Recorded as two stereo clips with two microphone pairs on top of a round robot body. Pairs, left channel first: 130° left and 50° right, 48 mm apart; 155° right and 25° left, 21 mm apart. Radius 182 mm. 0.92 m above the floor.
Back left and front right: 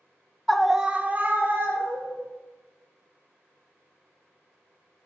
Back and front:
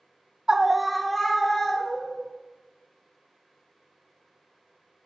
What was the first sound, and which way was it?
A scream, 40° left.